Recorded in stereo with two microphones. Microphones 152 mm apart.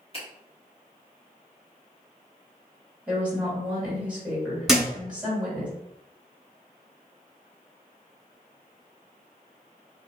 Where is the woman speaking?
10° right (ahead or behind), 1.8 m.